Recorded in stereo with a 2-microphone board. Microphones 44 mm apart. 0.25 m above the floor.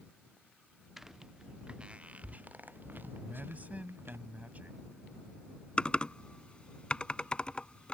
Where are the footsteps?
5° right (ahead or behind); by 4.2 s 60° right (ahead or behind).